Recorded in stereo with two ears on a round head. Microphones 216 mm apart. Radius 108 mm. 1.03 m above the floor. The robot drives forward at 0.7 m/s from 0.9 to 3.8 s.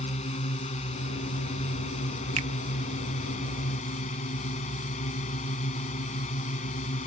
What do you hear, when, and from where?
0.0 s a drone: 25° left (ahead or behind); by 7.1 s 30° left (ahead or behind)
2.4 s a finger snap: 30° right (ahead or behind); by 2.5 s 25° right (ahead or behind)